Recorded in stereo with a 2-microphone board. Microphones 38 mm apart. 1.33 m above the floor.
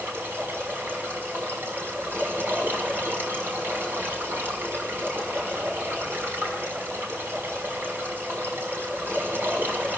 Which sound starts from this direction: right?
Running water, at 0.0 s.